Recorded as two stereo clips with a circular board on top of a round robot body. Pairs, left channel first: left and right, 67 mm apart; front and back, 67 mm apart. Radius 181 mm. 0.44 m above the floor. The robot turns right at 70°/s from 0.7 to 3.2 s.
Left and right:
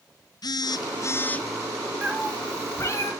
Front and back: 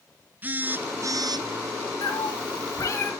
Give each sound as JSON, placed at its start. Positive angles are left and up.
{"t": 0.4, "sound": "a phone buzzing", "azimuth_deg": 115, "distance_m": 0.6}
{"t": 2.0, "sound": "a cat meowing", "azimuth_deg": -20, "distance_m": 1.7}